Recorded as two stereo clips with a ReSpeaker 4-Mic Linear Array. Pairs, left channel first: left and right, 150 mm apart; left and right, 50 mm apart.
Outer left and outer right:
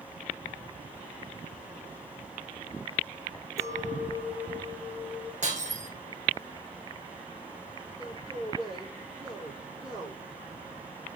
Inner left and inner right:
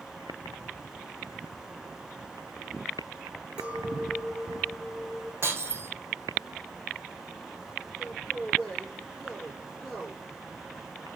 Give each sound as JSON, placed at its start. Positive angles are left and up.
{"t": 3.6, "sound": "a clink", "side_deg": -20, "distance_m": 2.5}
{"t": 5.4, "sound": "breaking glass", "side_deg": -55, "distance_m": 3.0}
{"t": 8.0, "sound": "a man speaking", "side_deg": -5, "distance_m": 7.0}